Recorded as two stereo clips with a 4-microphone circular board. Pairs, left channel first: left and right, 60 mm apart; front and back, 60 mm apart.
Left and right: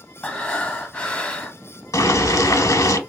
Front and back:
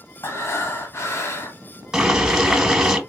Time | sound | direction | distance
0.2 | breathing | 25° left | 0.8 m
1.9 | boiling | 100° left | 0.8 m